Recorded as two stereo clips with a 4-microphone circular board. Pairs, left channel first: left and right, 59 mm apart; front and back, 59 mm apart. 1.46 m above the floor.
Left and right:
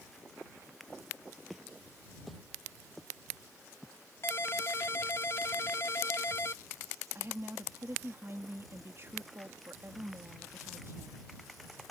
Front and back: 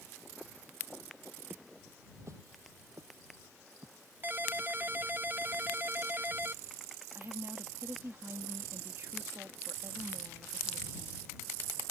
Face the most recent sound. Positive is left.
turn(degrees=-135)